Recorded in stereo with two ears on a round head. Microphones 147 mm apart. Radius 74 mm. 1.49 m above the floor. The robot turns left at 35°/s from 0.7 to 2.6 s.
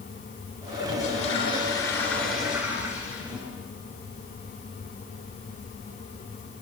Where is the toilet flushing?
60° left, 8 m; by 3.5 s 10° right, 8 m.